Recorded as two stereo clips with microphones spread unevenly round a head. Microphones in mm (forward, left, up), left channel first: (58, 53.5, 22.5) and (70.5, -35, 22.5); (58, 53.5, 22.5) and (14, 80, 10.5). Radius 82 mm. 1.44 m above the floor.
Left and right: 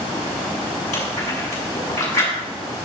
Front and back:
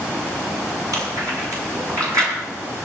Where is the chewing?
135° left, 6 m.